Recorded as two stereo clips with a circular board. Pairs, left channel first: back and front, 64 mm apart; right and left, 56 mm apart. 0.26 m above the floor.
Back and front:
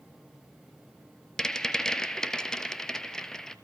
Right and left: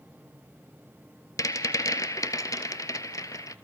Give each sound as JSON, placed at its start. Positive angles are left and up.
{"t": 1.4, "sound": "a rattle", "azimuth_deg": -100, "distance_m": 1.0}